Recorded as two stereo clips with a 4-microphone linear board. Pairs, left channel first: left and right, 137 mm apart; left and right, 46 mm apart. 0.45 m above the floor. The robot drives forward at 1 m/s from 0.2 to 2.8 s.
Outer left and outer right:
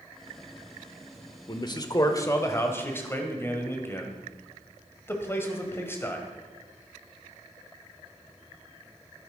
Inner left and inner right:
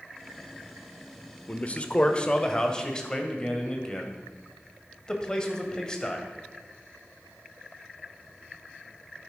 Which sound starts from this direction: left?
A man speaking, at 1.5 s.